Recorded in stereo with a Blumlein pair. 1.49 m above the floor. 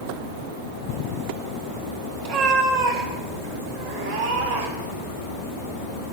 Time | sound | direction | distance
2.2 | a cat meowing | 45° right | 2.5 m